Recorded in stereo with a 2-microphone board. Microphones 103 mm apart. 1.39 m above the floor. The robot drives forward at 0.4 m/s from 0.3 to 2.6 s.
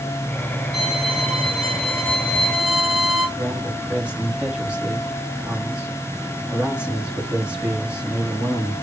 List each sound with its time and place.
0.7 s a violin: centre (ahead or behind), 4.5 m
3.4 s a man speaking: 10° right (ahead or behind), 3 m